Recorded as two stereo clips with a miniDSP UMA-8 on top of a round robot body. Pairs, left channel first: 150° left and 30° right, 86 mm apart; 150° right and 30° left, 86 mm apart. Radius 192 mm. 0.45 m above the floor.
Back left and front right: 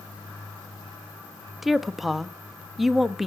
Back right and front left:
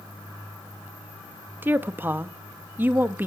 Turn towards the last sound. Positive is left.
turn(degrees=55)